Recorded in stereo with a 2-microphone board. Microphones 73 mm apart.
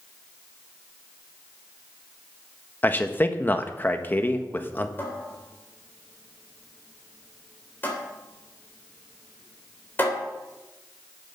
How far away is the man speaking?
About 1.2 m.